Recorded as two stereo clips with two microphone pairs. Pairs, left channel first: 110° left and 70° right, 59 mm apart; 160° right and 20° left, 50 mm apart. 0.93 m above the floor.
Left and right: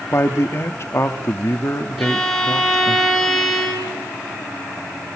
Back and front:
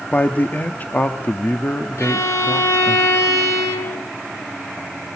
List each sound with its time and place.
0.1 s a man speaking: 150° left, 1.2 m
2.0 s a violin: 160° right, 5 m